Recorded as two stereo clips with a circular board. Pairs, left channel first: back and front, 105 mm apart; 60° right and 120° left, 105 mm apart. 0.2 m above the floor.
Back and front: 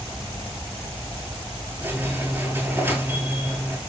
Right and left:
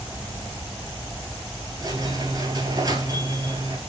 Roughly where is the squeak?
Left.